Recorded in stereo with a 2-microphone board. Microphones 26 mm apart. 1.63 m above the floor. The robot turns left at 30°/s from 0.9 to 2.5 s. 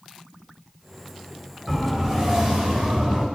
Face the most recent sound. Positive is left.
turn(degrees=-35)  # may be behind; listen again after turning